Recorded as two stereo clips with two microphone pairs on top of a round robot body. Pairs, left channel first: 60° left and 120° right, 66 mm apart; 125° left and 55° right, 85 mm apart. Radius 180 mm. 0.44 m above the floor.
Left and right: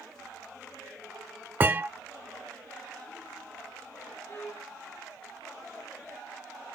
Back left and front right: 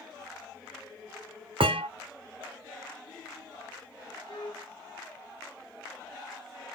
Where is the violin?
110° left, 3 m.